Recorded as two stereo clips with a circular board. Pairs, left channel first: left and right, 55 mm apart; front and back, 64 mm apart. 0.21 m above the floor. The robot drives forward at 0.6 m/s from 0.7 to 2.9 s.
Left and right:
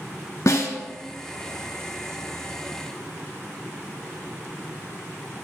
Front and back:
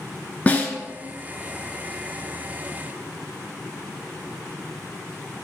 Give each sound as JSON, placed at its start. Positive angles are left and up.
{"t": 0.5, "sound": "a snare drum", "azimuth_deg": 65, "distance_m": 0.6}